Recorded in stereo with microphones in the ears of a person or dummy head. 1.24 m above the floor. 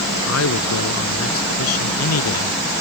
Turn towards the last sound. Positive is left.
turn(degrees=80)